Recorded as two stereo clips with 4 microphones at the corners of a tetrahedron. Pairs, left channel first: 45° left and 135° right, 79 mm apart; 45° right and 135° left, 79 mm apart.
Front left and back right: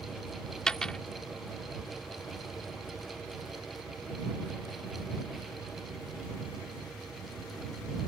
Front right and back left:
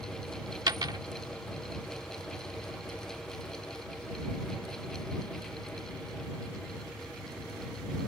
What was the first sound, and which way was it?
A dropped coin, 125° left.